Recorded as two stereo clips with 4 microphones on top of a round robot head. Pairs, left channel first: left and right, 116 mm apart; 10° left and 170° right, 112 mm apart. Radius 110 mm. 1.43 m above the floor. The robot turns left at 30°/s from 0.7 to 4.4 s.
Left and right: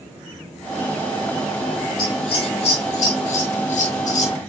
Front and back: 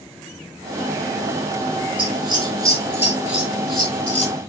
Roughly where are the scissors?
Behind left.